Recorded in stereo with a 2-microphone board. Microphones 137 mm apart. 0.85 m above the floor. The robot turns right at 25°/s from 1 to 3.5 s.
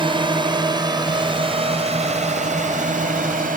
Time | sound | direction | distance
0.0 | a drone | 35° right (ahead or behind) | ?